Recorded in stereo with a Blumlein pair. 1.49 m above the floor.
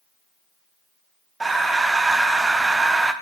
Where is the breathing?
10° right, 1.2 m.